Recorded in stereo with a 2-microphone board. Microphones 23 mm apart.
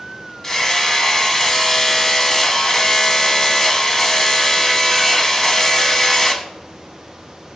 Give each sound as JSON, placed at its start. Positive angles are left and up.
{"t": 0.4, "sound": "hammering", "side_deg": 15, "distance_m": 1.0}